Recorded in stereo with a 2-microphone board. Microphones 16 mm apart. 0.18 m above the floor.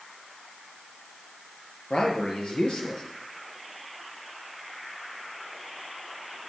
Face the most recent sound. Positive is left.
turn(degrees=65)  # may be behind; listen again after turning